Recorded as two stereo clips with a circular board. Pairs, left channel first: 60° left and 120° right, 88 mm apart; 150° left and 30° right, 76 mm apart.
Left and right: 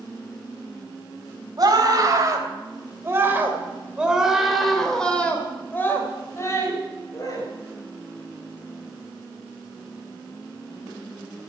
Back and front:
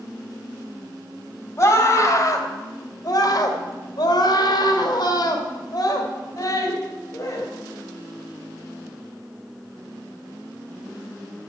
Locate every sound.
1.6 s a scream: 160° right, 3.5 m; by 7.5 s 105° left, 3.5 m